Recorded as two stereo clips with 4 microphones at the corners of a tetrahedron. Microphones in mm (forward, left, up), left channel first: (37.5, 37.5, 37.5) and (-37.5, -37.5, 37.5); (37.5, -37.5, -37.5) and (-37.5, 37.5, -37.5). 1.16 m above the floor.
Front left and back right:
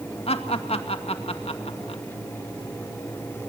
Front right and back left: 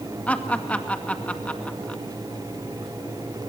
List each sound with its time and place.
0.3 s laughter: 30° left, 2 m